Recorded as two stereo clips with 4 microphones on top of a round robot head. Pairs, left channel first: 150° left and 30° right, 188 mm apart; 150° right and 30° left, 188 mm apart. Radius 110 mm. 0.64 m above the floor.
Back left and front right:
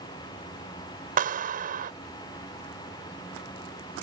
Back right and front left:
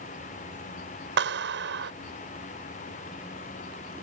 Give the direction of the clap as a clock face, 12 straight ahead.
12 o'clock.